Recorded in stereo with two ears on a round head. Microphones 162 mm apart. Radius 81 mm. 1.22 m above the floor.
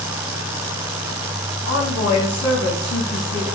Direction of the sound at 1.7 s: 75° left (ahead or behind).